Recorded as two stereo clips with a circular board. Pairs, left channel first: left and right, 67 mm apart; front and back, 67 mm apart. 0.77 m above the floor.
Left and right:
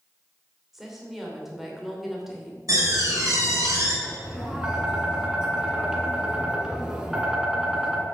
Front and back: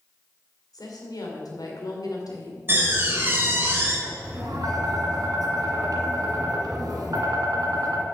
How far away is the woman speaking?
About 2.5 m.